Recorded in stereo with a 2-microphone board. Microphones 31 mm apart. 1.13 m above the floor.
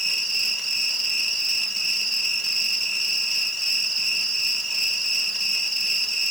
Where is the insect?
5° left (ahead or behind), 2 m.